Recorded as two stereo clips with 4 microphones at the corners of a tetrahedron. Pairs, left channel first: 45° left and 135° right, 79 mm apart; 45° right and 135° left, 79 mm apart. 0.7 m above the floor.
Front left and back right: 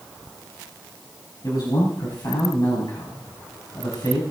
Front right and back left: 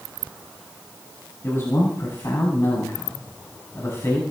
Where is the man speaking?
10° left, 4.5 m.